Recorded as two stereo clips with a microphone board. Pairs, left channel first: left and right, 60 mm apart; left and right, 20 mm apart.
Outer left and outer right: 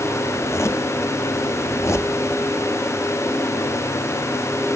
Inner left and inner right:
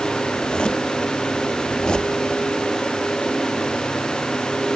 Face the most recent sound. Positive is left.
turn(degrees=50)  # may be behind; listen again after turning